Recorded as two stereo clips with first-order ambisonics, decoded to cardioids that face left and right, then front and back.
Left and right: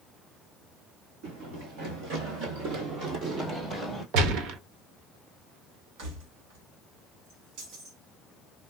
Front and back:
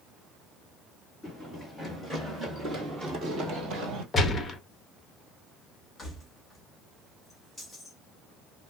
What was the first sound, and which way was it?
Running footsteps, 85° right.